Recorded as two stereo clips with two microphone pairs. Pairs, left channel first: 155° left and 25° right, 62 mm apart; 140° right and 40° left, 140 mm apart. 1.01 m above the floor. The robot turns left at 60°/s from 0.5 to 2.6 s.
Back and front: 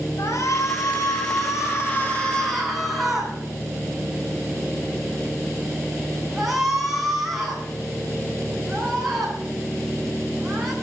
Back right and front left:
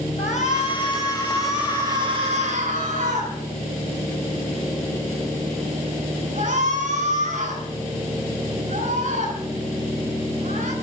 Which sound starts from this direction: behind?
A shout, at 0.2 s.